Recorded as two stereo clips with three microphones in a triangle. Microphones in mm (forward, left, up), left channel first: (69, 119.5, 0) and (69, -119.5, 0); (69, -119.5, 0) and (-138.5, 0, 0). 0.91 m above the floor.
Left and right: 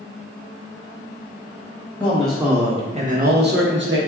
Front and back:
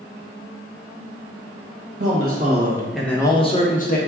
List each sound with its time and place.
2.0 s a man speaking: 170° left, 1.0 m; by 4.0 s 75° right, 1.2 m